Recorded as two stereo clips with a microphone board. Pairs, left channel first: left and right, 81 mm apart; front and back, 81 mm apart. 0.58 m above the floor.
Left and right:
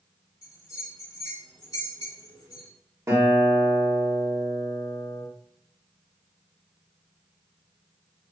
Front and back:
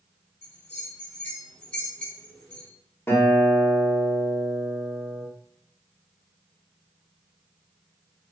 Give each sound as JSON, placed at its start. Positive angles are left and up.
{"t": 0.4, "sound": "a bell", "azimuth_deg": 65, "distance_m": 2.0}
{"t": 3.1, "sound": "a guitar", "azimuth_deg": -50, "distance_m": 1.5}